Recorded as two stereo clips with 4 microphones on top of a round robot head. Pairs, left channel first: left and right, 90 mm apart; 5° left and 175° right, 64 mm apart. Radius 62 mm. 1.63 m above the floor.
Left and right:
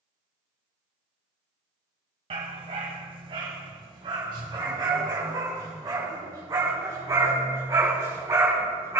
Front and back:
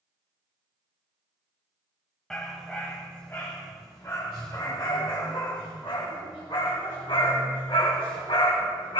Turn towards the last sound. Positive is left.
turn(degrees=-30)